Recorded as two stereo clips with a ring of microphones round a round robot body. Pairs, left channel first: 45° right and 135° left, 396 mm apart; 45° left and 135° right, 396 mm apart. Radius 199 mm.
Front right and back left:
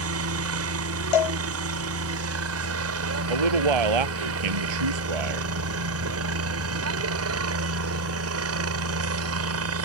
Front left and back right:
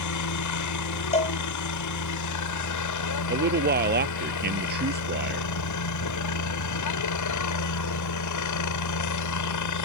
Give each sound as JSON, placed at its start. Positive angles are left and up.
{"t": 0.0, "sound": "a helicopter", "azimuth_deg": 85}
{"t": 1.1, "sound": "a cowbell", "azimuth_deg": -30}
{"t": 3.3, "sound": "a man speaking", "azimuth_deg": 160}